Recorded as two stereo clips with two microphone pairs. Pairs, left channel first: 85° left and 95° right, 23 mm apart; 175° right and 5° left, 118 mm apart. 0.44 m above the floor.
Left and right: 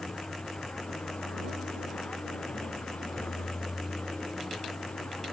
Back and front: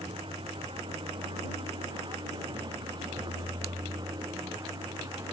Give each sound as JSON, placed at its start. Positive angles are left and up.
{"t": 0.0, "sound": "a vehicle", "azimuth_deg": 45}